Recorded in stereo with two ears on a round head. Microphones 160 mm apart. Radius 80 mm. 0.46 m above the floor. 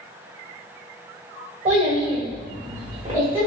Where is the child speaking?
40° right (ahead or behind), 1.5 m; by 3.5 s 10° right (ahead or behind), 1.4 m.